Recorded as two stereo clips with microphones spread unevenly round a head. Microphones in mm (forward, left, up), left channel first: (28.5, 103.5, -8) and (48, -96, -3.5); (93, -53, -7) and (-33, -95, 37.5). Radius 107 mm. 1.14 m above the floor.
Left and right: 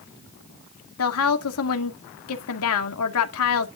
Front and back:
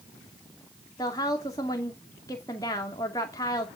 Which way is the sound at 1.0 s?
90° left.